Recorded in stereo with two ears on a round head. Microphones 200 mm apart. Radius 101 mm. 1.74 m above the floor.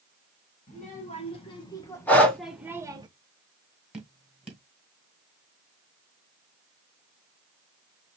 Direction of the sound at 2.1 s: 5° left (ahead or behind).